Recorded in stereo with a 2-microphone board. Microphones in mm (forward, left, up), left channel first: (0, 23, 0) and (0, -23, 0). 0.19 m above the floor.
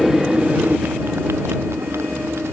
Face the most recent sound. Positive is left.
turn(degrees=-85)